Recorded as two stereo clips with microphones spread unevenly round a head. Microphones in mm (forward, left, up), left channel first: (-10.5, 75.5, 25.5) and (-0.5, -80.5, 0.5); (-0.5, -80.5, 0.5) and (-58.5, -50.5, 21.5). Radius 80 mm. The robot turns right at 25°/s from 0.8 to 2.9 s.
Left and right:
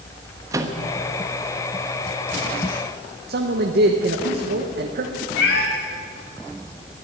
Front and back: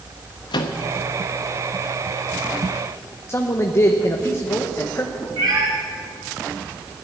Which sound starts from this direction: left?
A cat meowing, at 5.4 s.